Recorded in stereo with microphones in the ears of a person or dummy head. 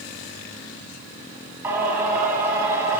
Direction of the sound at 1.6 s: 15° right (ahead or behind).